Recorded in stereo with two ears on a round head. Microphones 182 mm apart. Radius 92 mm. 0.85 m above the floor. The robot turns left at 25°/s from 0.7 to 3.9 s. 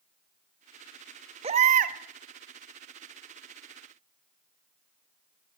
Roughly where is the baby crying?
Right.